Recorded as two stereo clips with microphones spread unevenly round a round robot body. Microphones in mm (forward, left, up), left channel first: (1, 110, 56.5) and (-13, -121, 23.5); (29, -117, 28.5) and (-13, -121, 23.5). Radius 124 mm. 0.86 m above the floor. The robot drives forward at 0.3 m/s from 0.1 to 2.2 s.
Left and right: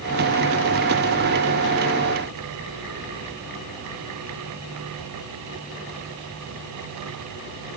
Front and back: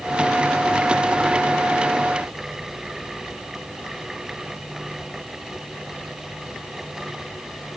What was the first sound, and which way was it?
Only background noise.